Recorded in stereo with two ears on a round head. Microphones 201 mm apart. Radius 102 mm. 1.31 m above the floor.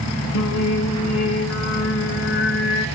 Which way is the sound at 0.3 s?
65° left (ahead or behind).